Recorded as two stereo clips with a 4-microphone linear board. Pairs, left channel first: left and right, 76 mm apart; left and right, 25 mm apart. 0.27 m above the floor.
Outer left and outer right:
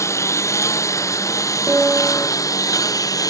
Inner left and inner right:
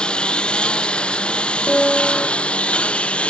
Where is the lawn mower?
40° left (ahead or behind); by 3.3 s 50° left (ahead or behind).